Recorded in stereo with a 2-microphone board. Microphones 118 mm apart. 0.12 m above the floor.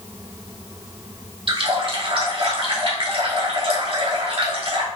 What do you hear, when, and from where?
1.5 s a running tap: 50° right (ahead or behind), 1.4 m